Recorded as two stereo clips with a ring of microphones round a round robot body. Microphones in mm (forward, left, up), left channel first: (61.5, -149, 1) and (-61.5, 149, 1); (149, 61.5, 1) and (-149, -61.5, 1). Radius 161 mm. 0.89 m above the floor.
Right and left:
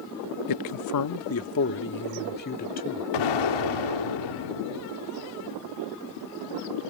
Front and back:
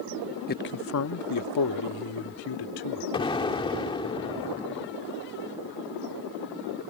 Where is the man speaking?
40° right; by 3.0 s straight ahead.